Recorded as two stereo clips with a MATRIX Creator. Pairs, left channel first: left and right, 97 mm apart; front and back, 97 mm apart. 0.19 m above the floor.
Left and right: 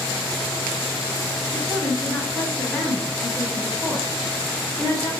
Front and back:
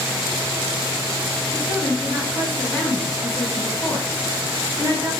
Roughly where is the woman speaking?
Ahead.